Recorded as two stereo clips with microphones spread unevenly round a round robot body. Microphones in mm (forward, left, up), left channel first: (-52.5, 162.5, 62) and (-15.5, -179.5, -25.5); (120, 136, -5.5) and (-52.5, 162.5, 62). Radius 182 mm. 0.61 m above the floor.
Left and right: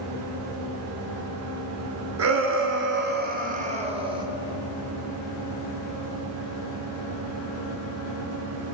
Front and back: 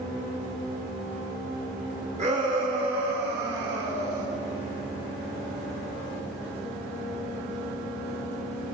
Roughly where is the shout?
Behind right.